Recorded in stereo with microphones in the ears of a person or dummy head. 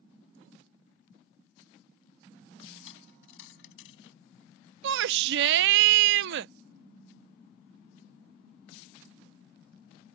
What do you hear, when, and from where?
2.8 s a dropped coin: 80° left
4.8 s a shout: 70° right (ahead or behind)